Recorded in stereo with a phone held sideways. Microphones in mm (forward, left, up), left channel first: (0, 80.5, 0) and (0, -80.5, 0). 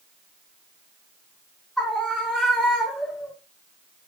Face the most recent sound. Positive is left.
turn(degrees=0)  # may be behind; listen again after turning